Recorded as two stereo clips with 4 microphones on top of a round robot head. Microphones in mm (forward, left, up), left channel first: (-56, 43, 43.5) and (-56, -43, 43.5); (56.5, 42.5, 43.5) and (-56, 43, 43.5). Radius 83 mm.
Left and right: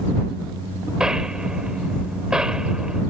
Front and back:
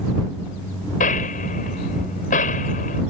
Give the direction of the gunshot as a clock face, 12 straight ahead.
12 o'clock.